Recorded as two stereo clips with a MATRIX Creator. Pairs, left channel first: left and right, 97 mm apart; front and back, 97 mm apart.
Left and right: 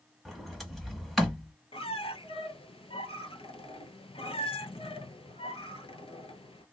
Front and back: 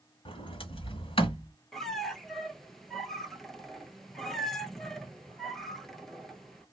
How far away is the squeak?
About 0.7 m.